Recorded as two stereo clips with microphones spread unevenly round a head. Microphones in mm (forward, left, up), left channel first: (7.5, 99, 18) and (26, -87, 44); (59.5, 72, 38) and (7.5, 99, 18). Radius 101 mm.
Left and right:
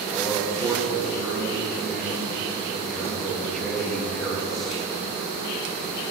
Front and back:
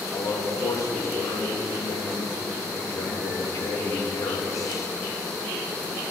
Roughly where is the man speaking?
Ahead.